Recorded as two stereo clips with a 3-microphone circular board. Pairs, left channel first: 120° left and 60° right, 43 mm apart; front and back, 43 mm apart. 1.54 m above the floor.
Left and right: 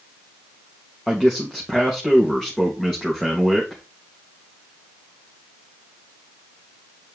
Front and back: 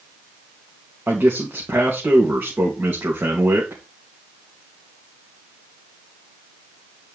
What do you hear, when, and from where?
1.1 s a man speaking: 155° right, 2.5 m